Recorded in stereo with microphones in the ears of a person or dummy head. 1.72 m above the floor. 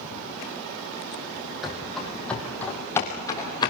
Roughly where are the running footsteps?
Centre.